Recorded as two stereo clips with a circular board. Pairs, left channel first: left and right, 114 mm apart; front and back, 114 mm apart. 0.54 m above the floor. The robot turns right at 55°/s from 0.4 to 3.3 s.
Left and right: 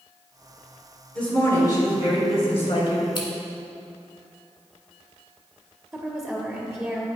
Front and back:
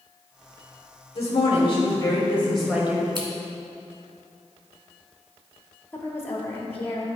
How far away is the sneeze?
No sneeze in this recording.